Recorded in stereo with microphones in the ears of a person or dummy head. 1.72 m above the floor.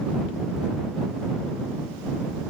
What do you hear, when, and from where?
Only background noise.